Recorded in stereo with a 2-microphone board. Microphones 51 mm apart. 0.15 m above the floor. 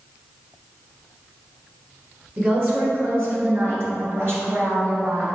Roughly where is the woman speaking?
Right.